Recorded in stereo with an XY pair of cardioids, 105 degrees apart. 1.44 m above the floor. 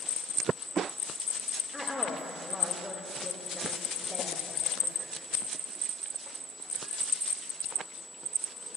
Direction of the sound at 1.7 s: 5° left.